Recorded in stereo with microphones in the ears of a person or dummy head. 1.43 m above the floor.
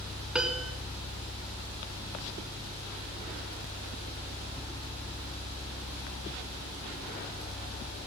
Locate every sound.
0.3 s a piano: 10° right (ahead or behind), 1.3 m